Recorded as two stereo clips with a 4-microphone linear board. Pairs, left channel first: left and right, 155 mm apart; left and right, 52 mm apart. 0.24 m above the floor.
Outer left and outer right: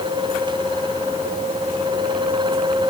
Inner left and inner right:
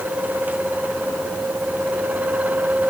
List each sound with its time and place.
Only background noise.